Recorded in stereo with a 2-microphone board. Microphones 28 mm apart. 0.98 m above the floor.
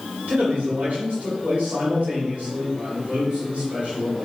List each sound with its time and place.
0.3 s a man speaking: 65° right (ahead or behind), 3.5 m